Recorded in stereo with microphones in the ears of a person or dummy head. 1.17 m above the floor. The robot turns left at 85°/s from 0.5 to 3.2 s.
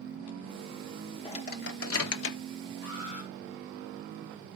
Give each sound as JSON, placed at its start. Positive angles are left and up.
{"t": 1.2, "sound": "a microwave", "side_deg": 25, "distance_m": 0.9}
{"t": 2.8, "sound": "an alarm", "azimuth_deg": 105, "distance_m": 4.5}